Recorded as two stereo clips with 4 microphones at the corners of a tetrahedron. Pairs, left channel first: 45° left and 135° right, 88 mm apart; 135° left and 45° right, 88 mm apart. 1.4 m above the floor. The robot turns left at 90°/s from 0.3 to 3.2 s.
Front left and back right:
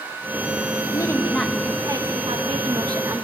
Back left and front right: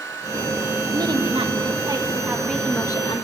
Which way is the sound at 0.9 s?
5° left.